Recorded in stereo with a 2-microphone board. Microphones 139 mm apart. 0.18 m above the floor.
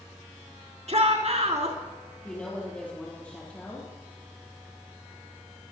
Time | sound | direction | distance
0.9 | a shout | 55° right (ahead or behind) | 3 m
2.2 | a woman speaking | 10° left (ahead or behind) | 4 m